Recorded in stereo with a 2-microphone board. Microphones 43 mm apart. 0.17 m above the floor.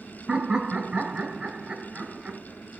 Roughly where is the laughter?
Right.